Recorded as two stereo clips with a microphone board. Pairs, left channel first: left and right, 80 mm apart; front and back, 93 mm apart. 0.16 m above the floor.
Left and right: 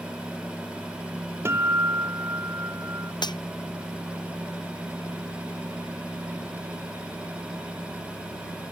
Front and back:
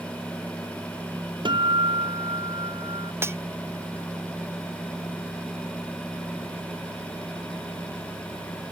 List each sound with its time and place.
1.4 s a guitar: 150° right
3.2 s cutlery clinking: 115° left